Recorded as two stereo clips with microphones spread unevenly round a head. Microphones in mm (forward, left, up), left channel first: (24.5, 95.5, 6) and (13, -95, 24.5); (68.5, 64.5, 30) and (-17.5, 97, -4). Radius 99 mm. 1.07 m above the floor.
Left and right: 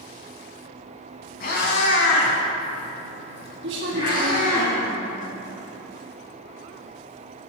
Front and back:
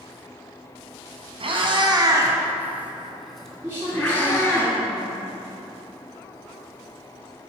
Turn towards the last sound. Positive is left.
turn(degrees=-130)